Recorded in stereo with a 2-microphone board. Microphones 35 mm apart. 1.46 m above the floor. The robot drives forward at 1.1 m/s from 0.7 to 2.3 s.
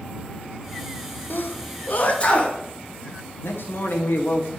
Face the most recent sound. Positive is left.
turn(degrees=80)